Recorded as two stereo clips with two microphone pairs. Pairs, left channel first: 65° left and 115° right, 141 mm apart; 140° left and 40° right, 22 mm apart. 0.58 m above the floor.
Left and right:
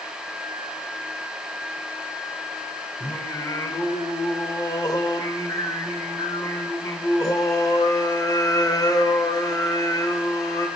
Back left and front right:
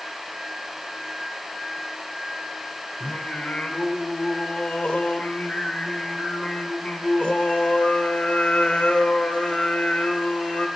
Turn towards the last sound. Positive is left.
turn(degrees=125)